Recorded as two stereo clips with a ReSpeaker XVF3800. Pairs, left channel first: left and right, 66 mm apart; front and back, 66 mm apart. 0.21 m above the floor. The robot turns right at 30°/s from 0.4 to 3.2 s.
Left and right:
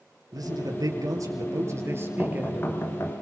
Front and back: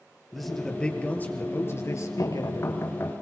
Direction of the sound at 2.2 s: 25° left.